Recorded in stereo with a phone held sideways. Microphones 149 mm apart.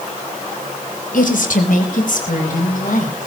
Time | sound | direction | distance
1.1 | a woman speaking | 70° left (ahead or behind) | 3.5 m